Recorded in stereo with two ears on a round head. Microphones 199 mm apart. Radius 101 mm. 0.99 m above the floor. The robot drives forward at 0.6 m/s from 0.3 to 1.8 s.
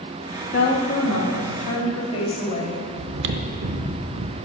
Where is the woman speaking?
40° left (ahead or behind), 1.7 m; by 2.9 s 30° left (ahead or behind), 2.5 m.